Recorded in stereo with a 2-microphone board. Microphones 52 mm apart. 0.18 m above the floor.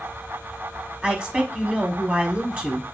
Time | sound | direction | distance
1.0 | a woman speaking | 20° right (ahead or behind) | 1.0 m